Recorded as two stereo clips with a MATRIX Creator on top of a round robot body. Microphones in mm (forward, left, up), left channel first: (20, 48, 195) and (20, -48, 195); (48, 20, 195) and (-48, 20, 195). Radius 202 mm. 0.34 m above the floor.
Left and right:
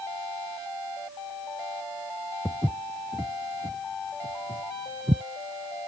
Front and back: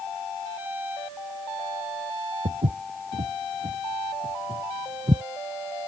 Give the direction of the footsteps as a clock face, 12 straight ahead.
6 o'clock.